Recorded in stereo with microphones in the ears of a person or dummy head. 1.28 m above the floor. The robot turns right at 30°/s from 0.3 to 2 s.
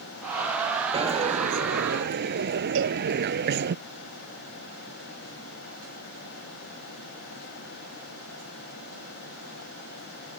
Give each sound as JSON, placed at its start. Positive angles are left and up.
{"t": 0.9, "sound": "a dropped coin", "azimuth_deg": -150}
{"t": 2.8, "sound": "a cowbell", "side_deg": -70}